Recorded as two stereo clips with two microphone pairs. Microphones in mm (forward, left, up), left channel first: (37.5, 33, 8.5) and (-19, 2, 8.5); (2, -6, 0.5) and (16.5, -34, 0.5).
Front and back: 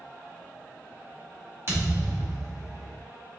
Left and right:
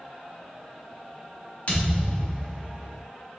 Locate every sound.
1.7 s a thud: 160° left, 1.3 m